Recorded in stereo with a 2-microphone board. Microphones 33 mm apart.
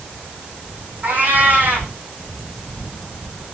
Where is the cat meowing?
60° right (ahead or behind), 5 m.